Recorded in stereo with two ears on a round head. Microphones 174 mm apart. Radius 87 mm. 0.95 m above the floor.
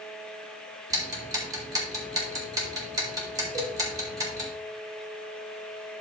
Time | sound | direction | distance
0.9 | ticking | 15° right (ahead or behind) | 2.5 m
3.5 | a cowbell | 75° right (ahead or behind) | 6 m